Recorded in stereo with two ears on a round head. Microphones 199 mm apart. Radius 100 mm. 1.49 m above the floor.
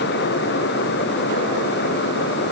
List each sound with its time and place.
Only background noise.